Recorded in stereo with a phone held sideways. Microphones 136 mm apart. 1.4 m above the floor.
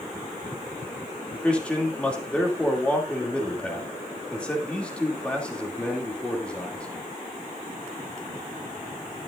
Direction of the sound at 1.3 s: 10° left (ahead or behind).